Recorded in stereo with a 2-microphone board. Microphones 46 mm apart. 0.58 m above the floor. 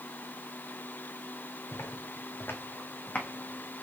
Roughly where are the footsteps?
Left.